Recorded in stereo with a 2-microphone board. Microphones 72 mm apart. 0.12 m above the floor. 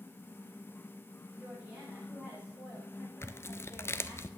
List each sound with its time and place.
1.4 s a woman speaking: 15° right (ahead or behind), 7.5 m
3.2 s tearing paper: 35° left (ahead or behind), 0.6 m